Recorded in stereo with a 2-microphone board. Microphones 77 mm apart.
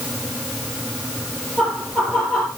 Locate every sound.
1.6 s laughter: 15° left (ahead or behind), 3.5 m